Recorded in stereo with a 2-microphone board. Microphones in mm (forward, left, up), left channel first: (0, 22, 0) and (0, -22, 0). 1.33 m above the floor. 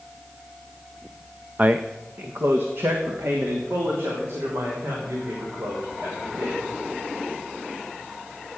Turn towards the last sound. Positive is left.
turn(degrees=-70)  # may be behind; listen again after turning